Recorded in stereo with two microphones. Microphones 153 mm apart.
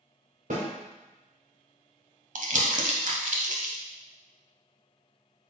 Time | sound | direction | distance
0.5 | a snare drum | 65° right (ahead or behind) | 2 m
2.4 | crumpling | 60° right (ahead or behind) | 0.8 m